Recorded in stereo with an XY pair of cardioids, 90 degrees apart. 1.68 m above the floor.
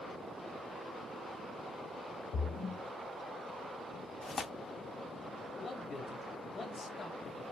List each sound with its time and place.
2.3 s a splash: 70° left, 0.9 m
4.2 s tearing paper: 45° left, 0.7 m
5.6 s a man speaking: 45° left, 2 m